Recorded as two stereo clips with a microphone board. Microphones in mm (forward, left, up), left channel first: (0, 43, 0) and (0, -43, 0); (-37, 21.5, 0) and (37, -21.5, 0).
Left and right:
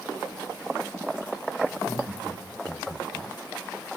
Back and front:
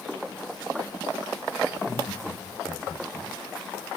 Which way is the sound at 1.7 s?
150° right.